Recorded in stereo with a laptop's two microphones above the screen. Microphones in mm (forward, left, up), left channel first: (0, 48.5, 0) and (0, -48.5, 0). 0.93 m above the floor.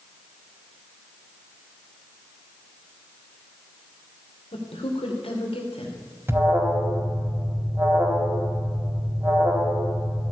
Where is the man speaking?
75° left (ahead or behind), 2.5 m.